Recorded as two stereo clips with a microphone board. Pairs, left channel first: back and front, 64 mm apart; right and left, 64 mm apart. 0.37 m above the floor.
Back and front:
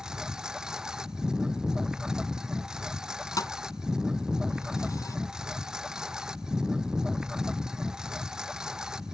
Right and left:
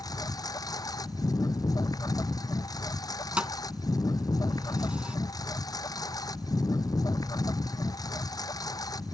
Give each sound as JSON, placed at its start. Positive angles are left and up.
{"t": 0.0, "sound": "a lawn mower", "azimuth_deg": -80}
{"t": 3.4, "sound": "a thud", "azimuth_deg": 160}